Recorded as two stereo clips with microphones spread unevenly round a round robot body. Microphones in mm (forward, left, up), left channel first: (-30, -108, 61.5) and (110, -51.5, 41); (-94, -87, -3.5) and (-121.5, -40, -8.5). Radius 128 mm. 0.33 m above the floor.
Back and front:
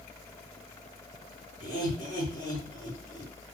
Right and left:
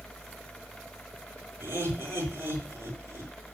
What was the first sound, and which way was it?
Laughter, 160° left.